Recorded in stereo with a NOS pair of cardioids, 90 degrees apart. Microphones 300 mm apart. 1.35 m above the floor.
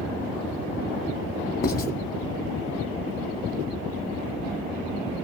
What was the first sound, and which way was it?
Writing, 30° left.